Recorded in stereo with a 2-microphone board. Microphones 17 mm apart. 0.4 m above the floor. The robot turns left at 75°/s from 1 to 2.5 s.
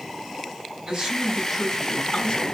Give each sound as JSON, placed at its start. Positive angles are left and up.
{"t": 0.9, "sound": "a man speaking", "azimuth_deg": -140, "distance_m": 4.0}